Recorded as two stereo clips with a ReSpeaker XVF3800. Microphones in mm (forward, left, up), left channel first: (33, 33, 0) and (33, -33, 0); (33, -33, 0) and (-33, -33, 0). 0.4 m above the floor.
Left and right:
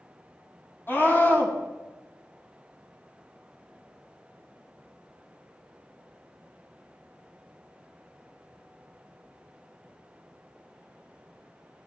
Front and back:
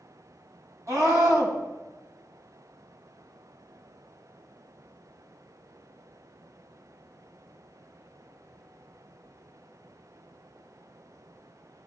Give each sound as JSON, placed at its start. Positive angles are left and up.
{"t": 0.9, "sound": "a scream", "azimuth_deg": 145, "distance_m": 3.0}